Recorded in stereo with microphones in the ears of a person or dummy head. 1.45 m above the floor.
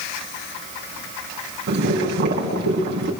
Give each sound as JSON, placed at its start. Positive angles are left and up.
{"t": 1.7, "sound": "boiling", "side_deg": -50, "distance_m": 5.0}